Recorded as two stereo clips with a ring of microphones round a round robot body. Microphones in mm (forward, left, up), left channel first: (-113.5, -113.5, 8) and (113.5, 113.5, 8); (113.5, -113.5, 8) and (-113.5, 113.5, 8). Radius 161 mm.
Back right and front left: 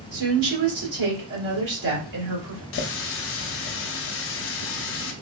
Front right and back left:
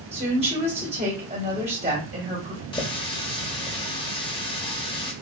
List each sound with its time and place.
0.1 s a woman speaking: 65° left, 1.9 m
2.7 s a running tap: 110° right, 0.5 m